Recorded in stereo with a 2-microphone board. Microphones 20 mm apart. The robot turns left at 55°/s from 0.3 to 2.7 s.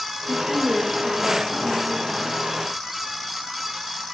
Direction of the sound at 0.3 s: 145° right.